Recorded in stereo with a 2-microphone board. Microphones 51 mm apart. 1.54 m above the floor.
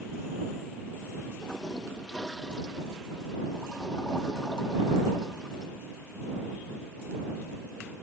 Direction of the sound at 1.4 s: 15° left (ahead or behind).